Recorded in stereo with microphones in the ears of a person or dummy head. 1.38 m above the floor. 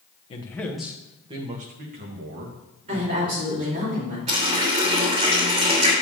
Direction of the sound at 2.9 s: 35° right (ahead or behind).